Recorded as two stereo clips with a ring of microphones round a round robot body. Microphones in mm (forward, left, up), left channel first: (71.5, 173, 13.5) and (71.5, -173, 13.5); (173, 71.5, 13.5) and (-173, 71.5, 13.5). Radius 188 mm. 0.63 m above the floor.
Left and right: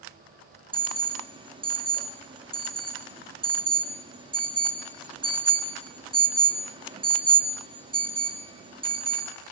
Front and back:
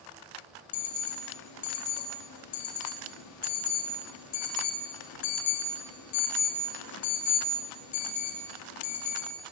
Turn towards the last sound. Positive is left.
turn(degrees=-15)